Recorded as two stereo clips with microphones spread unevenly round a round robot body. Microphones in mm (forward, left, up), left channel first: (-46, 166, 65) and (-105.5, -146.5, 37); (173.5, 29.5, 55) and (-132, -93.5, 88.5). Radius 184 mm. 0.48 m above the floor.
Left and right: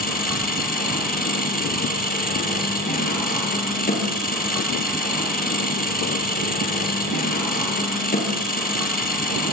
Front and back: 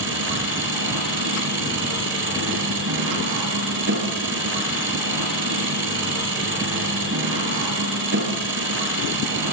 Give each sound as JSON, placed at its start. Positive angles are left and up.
{"t": 0.0, "sound": "an engine running", "azimuth_deg": 145, "distance_m": 7.0}